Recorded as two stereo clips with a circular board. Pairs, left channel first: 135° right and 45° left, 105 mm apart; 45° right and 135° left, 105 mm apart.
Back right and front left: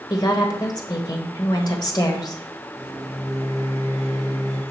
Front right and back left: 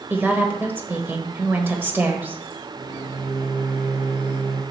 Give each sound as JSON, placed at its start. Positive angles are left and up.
{"t": 0.1, "sound": "a woman speaking", "azimuth_deg": -160, "distance_m": 1.3}
{"t": 2.8, "sound": "a microwave", "azimuth_deg": 170, "distance_m": 2.0}